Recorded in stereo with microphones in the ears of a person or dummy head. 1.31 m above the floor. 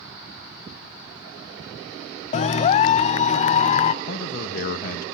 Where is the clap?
35° left (ahead or behind), 0.7 m.